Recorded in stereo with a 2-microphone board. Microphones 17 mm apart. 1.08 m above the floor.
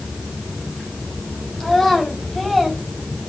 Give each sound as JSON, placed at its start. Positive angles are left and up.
{"t": 1.6, "sound": "a child speaking", "side_deg": 20, "distance_m": 4.5}